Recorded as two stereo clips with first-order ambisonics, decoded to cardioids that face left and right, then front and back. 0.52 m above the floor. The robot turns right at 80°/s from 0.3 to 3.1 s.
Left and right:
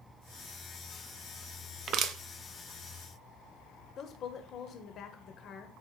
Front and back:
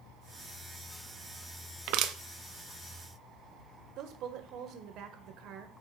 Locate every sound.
1.9 s crushing: 150° right, 0.8 m; by 2.1 s 125° right, 0.8 m
4.0 s a woman speaking: 145° left, 1.4 m